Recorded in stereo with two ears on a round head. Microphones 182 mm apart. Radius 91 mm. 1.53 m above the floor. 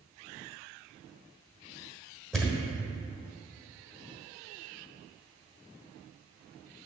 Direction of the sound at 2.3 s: Centre (ahead or behind).